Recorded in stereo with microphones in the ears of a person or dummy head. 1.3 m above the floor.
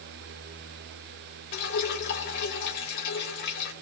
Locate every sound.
1.5 s dripping: 60° left (ahead or behind), 2.5 m